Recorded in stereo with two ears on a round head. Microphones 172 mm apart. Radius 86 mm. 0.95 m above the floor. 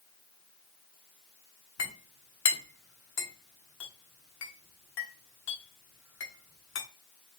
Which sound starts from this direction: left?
A clink, at 1.8 s.